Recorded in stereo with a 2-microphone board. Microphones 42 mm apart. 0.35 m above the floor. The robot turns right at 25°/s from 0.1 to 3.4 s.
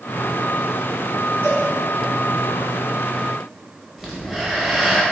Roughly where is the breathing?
Centre.